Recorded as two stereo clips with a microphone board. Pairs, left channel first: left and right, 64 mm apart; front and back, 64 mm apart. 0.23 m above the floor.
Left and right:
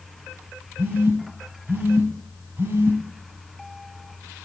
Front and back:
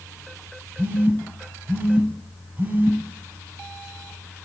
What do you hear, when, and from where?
0.8 s a phone buzzing: 125° right, 1.0 m